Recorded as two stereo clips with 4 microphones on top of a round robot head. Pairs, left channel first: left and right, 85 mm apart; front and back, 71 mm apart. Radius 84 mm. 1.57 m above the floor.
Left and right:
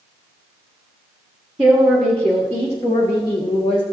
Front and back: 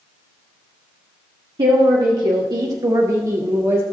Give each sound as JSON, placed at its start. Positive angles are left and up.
{"t": 1.6, "sound": "a woman speaking", "azimuth_deg": -175, "distance_m": 1.1}